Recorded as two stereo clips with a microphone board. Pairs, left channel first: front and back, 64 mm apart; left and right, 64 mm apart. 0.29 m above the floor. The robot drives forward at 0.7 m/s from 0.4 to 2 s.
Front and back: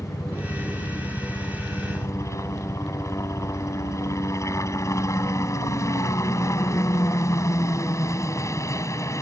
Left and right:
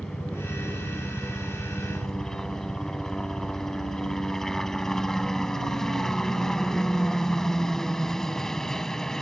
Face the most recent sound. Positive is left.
turn(degrees=10)